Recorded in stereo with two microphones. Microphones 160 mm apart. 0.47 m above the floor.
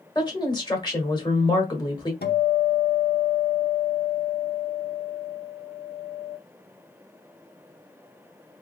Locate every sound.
0.1 s a woman speaking: 25° left (ahead or behind), 1.5 m
2.2 s a guitar: 80° left, 0.7 m